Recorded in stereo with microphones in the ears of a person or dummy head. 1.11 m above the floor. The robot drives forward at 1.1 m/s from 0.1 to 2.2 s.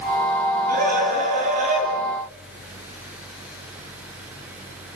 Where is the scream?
45° right (ahead or behind), 8.5 m; by 1.9 s 40° right (ahead or behind), 9.5 m.